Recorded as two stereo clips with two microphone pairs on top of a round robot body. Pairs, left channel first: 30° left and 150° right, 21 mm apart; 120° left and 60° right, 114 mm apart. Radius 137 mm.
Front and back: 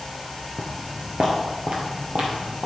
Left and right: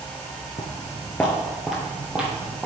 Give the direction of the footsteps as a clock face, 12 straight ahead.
8 o'clock.